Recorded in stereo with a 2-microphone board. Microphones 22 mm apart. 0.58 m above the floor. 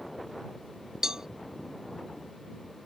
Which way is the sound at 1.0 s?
25° right (ahead or behind).